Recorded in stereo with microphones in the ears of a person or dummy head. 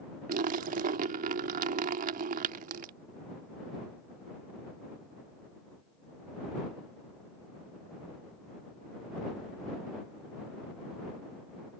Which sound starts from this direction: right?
A splash, at 0.3 s.